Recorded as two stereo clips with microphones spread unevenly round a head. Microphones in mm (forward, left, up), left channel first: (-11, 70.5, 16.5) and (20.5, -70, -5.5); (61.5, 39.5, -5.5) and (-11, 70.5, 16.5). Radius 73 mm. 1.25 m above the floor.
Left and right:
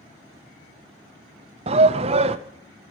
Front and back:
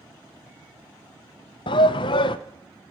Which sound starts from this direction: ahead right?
A shout, at 1.7 s.